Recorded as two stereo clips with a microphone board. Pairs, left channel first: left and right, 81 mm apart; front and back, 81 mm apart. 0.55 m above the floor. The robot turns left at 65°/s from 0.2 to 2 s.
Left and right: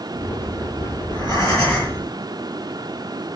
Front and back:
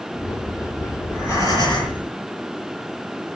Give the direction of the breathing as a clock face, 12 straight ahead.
9 o'clock.